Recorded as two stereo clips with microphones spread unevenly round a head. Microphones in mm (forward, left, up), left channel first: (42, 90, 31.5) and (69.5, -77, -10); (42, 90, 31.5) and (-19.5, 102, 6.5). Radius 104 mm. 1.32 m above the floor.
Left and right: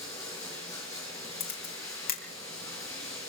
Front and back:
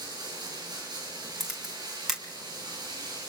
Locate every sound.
0.0 s running water: 175° left, 7 m
1.4 s a camera shutter: 80° left, 4 m